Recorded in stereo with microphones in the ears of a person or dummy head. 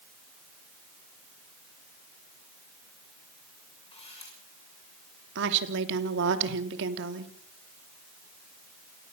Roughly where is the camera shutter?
Left.